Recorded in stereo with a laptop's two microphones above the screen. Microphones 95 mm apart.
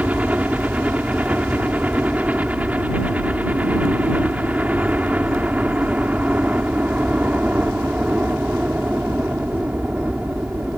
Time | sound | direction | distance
0.0 | a helicopter | 15° right (ahead or behind) | ?